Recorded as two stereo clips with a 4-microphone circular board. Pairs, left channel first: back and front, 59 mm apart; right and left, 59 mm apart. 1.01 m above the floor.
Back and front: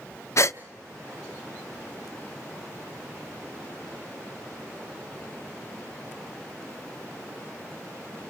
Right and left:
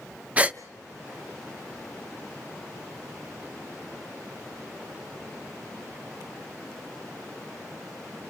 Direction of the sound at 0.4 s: 155° left.